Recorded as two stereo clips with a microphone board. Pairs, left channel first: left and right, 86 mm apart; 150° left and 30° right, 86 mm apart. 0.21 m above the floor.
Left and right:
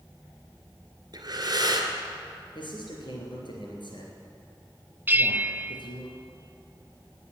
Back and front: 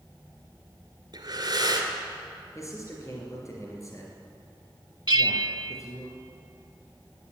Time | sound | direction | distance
1.1 | breathing | 55° right | 2 m
2.5 | a man speaking | 100° left | 3 m
5.1 | a bell | 25° right | 0.5 m